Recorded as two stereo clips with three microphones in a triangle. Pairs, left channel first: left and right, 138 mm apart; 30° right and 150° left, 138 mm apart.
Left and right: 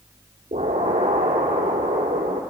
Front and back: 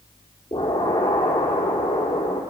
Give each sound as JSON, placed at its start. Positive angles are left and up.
{"t": 0.5, "sound": "an explosion", "azimuth_deg": -95, "distance_m": 2.5}